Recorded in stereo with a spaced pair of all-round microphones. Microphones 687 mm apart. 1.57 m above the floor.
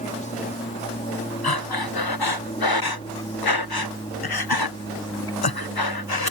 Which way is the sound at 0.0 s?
10° left (ahead or behind).